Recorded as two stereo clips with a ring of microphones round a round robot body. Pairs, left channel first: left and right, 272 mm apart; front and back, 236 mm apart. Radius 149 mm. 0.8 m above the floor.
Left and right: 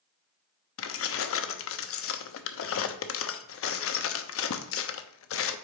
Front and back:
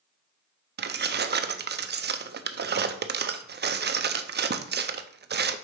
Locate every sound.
0.8 s keys jangling: 130° left, 0.7 m